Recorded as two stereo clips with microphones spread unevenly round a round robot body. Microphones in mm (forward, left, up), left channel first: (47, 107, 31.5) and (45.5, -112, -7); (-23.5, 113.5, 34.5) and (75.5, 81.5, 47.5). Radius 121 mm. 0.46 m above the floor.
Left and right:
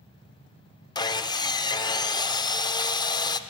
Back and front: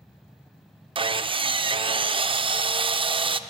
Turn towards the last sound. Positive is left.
turn(degrees=15)